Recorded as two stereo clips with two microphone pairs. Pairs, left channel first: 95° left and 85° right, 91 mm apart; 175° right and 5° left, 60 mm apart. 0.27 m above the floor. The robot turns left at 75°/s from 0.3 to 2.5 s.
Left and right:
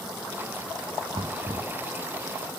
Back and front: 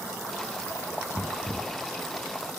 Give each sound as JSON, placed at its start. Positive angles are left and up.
{"t": 1.1, "sound": "knocking", "azimuth_deg": -90, "distance_m": 2.5}